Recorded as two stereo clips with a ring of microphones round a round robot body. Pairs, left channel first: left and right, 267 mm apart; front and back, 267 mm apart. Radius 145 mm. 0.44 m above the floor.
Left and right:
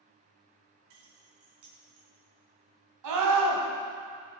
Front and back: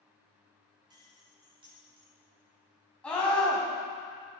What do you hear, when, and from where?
0.9 s keys jangling: 105° right, 2.5 m
3.0 s a scream: 85° right, 3 m